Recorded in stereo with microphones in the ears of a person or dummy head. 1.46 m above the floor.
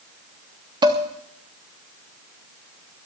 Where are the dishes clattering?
15° right (ahead or behind), 1.4 m.